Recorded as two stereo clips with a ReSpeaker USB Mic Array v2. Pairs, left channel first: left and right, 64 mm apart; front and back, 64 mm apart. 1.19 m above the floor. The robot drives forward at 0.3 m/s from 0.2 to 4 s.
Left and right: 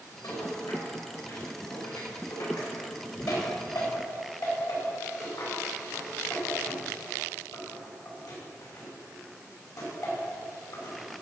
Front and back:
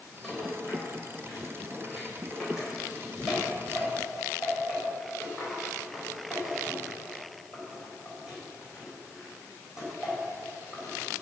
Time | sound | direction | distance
0.2 | a rattle | 90° left | 5 m